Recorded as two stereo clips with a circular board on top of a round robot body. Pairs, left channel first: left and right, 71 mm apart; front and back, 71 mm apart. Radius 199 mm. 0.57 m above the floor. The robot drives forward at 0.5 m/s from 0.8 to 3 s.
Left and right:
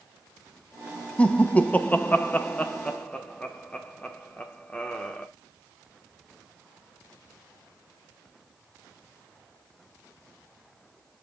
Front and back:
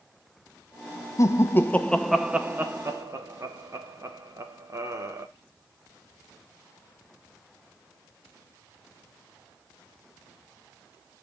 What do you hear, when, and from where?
1.2 s laughter: 20° left, 0.8 m; by 5.3 s 160° left, 0.8 m